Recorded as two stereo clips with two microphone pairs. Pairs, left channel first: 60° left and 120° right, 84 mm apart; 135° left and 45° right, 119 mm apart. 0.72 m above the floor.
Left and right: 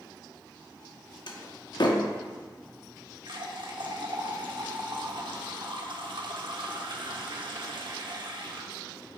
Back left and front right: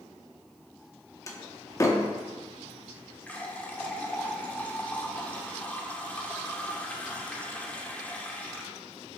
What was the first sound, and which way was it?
A door slam, 75° left.